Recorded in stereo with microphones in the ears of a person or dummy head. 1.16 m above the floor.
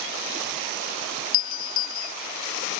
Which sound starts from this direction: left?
A doorbell, at 1.3 s.